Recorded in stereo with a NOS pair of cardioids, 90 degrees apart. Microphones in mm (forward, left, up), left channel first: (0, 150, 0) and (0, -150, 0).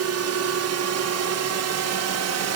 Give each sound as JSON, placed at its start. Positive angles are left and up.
{"t": 0.0, "sound": "a drone", "azimuth_deg": -65}